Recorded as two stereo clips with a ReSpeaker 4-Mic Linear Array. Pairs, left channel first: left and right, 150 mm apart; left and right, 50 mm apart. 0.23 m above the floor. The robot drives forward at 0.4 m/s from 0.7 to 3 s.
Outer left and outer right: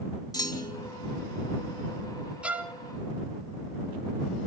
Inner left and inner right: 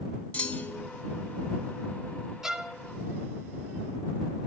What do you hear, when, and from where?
0.3 s a clunk: 25° left (ahead or behind), 1.8 m
2.4 s a violin: 10° right (ahead or behind), 1.0 m